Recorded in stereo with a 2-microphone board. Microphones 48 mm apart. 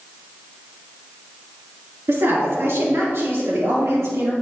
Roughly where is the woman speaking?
Right.